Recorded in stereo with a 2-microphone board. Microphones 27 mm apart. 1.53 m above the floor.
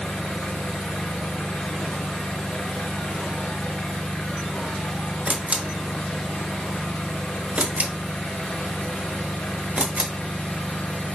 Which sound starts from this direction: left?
An engine running, at 0.0 s.